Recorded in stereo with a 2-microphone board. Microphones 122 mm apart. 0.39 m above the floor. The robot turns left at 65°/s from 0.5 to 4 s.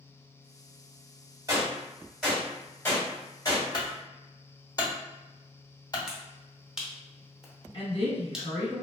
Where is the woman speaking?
50° left (ahead or behind), 1.2 m.